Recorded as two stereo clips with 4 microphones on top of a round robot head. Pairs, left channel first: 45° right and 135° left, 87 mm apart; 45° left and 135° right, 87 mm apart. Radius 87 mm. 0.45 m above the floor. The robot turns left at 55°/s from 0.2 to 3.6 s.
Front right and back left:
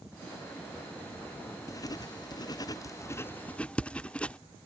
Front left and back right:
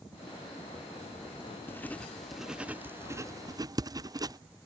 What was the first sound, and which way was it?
Writing, 10° right.